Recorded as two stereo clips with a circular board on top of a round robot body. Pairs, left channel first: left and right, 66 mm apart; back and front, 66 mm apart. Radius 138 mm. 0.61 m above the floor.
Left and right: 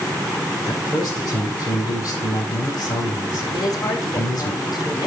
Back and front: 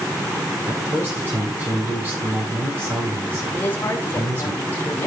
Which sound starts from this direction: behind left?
A woman speaking, at 3.5 s.